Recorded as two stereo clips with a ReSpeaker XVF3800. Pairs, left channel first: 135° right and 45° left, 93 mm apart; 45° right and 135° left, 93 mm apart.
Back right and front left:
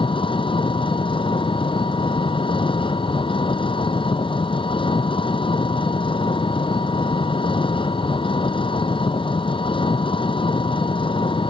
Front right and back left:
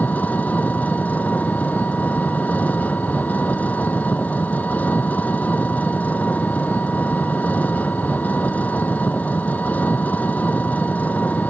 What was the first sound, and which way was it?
An engine running, 115° right.